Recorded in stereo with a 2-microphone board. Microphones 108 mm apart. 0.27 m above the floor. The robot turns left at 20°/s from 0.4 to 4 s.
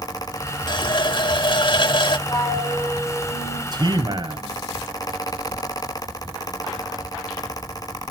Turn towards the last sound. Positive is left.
turn(degrees=-40)  # may be behind; listen again after turning